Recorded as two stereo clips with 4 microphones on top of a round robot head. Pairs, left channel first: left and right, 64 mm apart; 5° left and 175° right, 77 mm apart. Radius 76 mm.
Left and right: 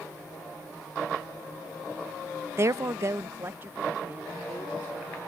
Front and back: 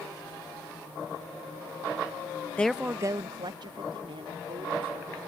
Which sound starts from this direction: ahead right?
A woman speaking, at 2.6 s.